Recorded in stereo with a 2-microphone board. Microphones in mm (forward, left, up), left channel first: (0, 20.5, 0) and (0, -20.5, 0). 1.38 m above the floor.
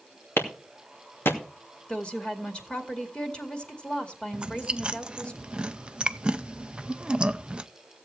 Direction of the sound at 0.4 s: 75° left (ahead or behind).